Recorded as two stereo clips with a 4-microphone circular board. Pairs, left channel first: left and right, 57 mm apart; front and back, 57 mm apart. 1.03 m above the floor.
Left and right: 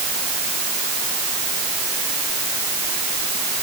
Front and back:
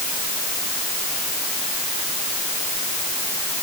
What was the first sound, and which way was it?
Only background noise.